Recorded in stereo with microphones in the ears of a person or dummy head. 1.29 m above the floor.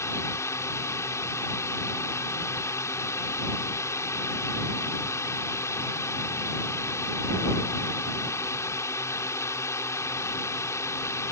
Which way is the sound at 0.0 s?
15° left (ahead or behind).